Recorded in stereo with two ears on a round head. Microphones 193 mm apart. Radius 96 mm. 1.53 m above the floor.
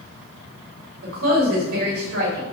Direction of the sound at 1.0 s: 70° right (ahead or behind).